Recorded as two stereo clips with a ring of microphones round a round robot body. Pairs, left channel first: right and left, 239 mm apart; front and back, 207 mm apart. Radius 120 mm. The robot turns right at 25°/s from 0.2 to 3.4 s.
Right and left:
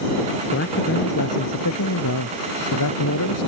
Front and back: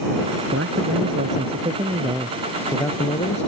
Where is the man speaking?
135° right; by 3.5 s 65° right.